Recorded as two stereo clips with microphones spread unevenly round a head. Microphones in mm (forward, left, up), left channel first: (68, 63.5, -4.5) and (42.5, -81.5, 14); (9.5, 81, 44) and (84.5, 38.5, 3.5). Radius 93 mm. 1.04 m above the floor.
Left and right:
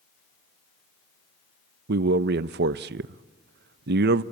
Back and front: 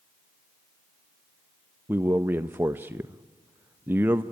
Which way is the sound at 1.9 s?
100° right.